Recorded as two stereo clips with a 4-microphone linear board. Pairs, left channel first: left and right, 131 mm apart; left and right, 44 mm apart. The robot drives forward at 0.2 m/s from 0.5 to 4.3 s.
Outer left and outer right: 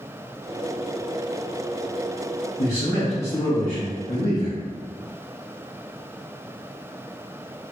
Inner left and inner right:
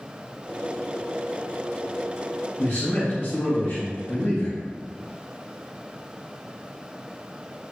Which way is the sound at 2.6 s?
50° left (ahead or behind).